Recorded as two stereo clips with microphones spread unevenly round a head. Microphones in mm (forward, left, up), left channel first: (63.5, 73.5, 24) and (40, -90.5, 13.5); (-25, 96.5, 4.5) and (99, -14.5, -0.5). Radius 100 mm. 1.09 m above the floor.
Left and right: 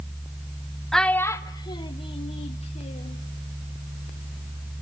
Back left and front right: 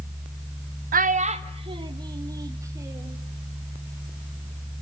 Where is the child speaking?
5° right, 0.7 m; by 3.2 s 35° left, 2 m.